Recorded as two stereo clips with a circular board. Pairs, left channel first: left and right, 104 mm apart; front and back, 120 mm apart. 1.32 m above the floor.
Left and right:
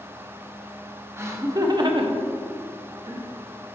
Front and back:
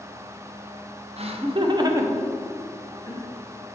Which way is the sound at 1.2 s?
155° right.